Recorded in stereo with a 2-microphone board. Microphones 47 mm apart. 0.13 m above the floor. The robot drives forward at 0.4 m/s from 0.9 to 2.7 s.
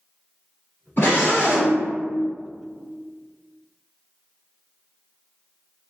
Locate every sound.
1.0 s a scream: 45° left (ahead or behind), 1.9 m; by 1.8 s 40° left (ahead or behind), 2 m